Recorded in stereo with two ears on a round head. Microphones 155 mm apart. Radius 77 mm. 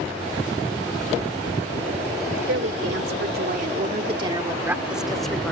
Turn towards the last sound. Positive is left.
turn(degrees=5)  # may be behind; listen again after turning